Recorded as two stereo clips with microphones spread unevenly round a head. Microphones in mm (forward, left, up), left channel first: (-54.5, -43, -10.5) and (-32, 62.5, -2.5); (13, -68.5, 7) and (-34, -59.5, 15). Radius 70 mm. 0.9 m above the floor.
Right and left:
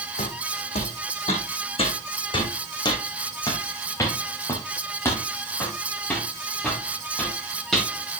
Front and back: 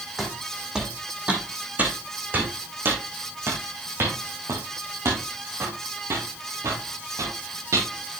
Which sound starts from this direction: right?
Footsteps, at 0.2 s.